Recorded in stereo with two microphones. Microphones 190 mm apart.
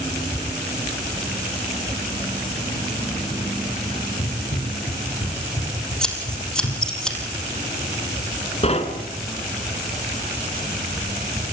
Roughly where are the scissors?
Centre.